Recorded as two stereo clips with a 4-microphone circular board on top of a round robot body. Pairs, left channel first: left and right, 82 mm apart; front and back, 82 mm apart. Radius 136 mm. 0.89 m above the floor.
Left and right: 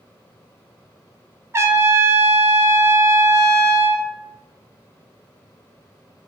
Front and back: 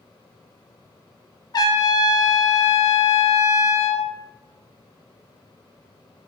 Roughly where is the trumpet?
Ahead right.